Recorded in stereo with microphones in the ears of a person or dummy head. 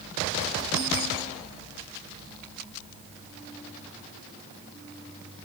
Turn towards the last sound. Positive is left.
No sound to turn to.